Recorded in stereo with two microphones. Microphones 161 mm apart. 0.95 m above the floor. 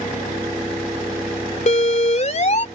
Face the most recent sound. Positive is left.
turn(degrees=50)  # may be behind; listen again after turning